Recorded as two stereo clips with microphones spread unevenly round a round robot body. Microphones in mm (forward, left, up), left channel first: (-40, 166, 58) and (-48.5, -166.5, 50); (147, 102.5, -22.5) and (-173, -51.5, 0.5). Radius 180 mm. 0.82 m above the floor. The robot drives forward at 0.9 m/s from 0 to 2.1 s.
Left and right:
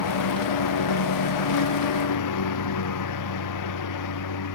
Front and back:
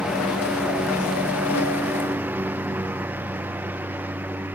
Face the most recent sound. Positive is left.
turn(degrees=120)